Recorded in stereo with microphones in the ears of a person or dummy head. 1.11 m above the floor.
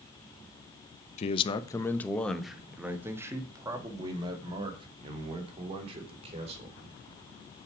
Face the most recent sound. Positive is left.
turn(degrees=-35)  # may be behind; listen again after turning